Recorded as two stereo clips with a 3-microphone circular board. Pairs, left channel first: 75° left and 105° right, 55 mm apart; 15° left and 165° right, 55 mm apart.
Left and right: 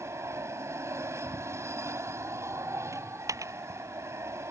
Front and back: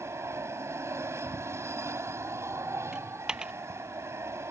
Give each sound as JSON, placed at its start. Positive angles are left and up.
{"t": 0.0, "sound": "an aircraft", "azimuth_deg": -135}
{"t": 2.9, "sound": "a dropped coin", "azimuth_deg": -90}